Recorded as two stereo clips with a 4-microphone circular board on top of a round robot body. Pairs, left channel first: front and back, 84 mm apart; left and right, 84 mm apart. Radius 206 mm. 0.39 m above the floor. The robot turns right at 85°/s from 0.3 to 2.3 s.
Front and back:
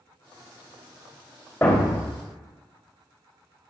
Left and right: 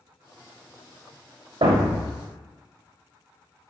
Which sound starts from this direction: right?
A thud, at 1.6 s.